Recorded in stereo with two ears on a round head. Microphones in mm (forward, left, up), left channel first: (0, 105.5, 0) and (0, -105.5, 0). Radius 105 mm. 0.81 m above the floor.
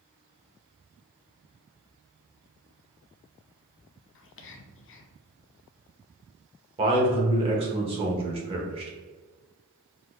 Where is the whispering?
55° left (ahead or behind), 0.7 m.